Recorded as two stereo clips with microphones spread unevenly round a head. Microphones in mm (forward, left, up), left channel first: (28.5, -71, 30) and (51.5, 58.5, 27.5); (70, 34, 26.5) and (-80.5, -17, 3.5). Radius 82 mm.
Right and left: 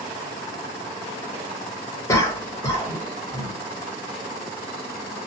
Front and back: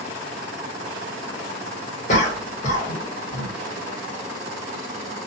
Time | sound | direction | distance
2.1 | a cough | 30° right | 1.3 m